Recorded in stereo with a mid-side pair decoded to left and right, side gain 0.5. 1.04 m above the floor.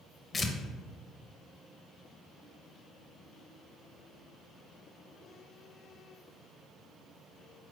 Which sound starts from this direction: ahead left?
Tearing paper, at 0.3 s.